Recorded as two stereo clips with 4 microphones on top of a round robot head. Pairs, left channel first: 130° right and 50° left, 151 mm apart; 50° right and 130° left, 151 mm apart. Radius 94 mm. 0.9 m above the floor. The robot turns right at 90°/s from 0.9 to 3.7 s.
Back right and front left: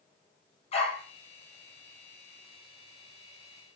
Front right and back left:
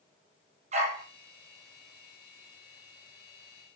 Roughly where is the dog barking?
Behind.